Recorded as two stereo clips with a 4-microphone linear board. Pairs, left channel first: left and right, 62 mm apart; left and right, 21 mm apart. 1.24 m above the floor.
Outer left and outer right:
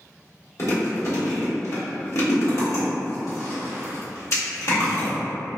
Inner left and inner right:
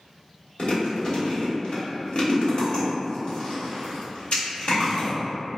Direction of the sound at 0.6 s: 50° left (ahead or behind).